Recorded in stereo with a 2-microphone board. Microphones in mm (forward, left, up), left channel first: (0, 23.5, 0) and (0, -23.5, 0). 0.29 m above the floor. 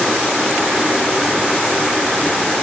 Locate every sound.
Only background noise.